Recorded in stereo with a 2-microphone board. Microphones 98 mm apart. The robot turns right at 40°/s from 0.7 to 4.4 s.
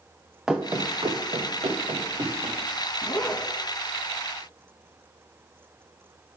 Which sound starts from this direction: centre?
Running footsteps, at 0.5 s.